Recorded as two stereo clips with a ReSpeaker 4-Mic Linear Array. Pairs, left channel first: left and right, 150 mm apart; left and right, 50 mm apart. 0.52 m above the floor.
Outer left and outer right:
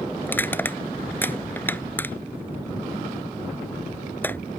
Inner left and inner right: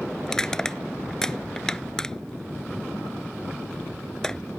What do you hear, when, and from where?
0.2 s crushing: 15° left (ahead or behind)